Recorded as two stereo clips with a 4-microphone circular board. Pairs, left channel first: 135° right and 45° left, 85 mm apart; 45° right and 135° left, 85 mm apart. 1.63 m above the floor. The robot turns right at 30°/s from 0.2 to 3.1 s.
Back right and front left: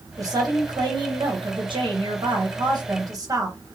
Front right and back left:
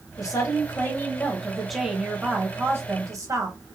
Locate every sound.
0.2 s a woman speaking: straight ahead, 1.0 m; by 3.6 s 85° left, 1.0 m